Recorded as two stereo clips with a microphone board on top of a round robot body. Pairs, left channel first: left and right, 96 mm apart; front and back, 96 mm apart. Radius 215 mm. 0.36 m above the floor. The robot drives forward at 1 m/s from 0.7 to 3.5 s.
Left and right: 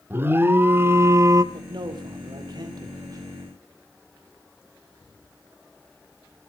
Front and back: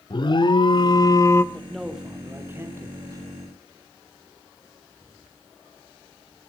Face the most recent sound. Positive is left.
turn(degrees=-140)